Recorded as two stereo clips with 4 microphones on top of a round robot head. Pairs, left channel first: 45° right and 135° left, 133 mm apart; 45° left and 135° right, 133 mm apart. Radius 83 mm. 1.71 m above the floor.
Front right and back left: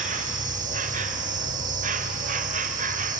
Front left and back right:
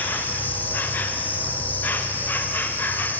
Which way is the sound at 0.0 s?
120° left.